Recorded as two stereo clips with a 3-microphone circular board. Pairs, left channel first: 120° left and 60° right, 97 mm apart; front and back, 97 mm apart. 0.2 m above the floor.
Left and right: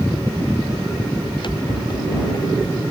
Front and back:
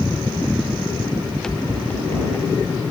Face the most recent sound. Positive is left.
turn(degrees=60)